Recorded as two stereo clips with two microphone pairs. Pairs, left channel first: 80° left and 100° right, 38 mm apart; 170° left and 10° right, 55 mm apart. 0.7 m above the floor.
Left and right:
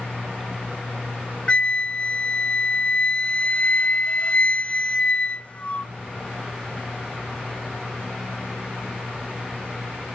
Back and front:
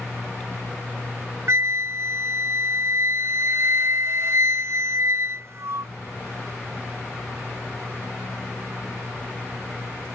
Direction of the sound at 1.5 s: 30° left.